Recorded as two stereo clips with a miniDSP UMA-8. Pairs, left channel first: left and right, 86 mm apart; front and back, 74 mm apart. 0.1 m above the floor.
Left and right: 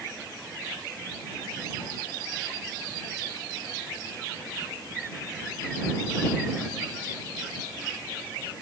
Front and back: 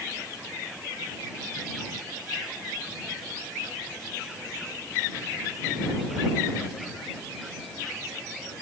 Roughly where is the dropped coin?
No dropped coin in this recording.